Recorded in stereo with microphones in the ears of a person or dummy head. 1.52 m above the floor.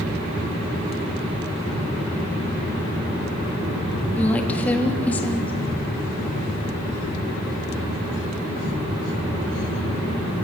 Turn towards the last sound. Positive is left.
turn(degrees=10)  # may be behind; listen again after turning